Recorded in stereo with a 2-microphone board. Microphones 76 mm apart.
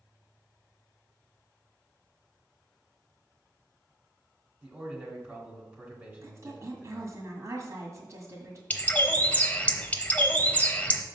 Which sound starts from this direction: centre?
A bird, at 8.7 s.